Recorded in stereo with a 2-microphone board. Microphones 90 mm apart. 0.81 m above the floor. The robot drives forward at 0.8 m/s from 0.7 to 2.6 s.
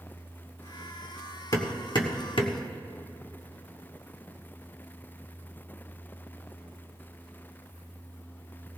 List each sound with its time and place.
1.5 s hammering: 45° left (ahead or behind), 1.5 m; by 2.6 s 80° left, 1.1 m